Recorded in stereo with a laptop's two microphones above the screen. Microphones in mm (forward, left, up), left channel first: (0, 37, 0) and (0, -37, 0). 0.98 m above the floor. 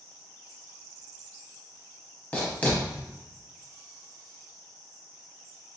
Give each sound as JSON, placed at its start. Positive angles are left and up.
{"t": 2.3, "sound": "writing", "side_deg": 25, "distance_m": 0.8}